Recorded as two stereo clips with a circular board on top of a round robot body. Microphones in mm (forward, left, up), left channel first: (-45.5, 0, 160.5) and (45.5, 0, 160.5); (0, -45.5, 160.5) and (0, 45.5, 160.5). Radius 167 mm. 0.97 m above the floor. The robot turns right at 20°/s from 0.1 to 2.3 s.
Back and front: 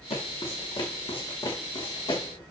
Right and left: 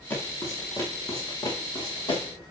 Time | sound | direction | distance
0.1 | footsteps | 160° right | 5 m